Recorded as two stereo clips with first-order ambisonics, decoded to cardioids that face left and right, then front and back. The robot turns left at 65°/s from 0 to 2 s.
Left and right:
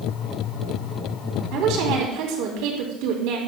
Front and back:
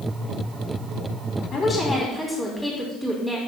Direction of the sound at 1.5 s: 55° right.